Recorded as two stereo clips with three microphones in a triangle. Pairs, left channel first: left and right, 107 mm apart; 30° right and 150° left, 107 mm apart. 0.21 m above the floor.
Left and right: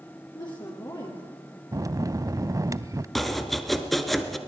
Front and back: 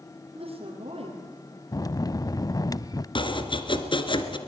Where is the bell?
55° right, 0.5 m.